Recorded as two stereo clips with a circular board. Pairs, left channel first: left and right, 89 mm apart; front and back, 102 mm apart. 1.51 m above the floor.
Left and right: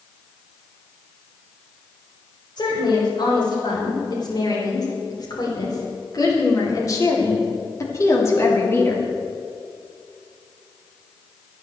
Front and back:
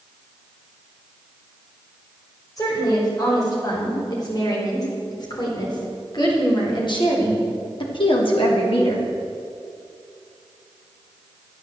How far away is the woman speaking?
About 6.5 m.